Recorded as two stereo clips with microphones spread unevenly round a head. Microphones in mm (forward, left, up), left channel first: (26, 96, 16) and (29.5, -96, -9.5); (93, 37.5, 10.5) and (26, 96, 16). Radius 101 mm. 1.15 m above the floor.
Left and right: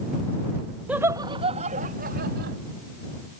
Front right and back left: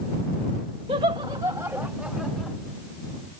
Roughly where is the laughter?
Behind.